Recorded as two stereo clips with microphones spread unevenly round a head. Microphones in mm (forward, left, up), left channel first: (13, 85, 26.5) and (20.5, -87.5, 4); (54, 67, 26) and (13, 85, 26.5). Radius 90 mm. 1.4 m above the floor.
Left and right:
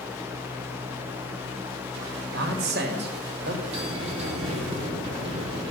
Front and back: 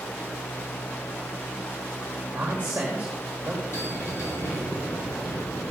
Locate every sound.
2.3 s a man speaking: 125° right, 1.5 m
3.7 s a bell: 30° right, 3.5 m